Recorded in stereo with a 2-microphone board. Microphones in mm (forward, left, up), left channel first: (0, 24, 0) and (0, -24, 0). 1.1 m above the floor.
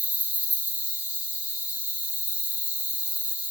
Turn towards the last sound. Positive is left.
turn(degrees=-30)  # may be behind; listen again after turning